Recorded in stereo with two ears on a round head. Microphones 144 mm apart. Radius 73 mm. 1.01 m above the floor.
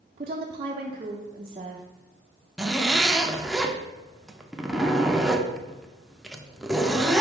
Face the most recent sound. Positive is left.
turn(degrees=0)  # may be behind; listen again after turning